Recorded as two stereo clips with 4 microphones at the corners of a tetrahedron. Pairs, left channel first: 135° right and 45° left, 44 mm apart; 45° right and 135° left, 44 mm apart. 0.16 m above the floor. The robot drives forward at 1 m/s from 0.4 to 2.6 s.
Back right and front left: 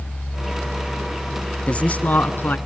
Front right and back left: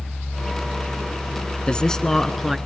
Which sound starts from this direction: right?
A man speaking, at 1.7 s.